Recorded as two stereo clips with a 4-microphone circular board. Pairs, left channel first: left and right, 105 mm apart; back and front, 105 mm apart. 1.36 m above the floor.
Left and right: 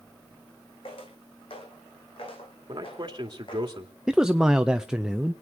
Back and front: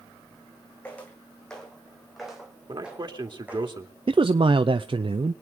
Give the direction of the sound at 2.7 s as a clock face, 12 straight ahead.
1 o'clock.